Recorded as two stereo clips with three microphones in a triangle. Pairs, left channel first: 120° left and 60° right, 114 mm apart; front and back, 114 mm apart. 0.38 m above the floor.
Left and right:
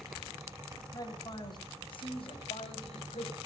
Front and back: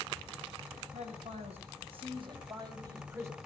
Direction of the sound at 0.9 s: 175° left.